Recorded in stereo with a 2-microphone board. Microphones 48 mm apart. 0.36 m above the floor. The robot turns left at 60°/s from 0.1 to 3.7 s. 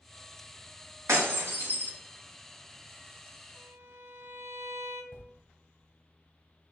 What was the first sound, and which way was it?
Breaking glass, 75° right (ahead or behind).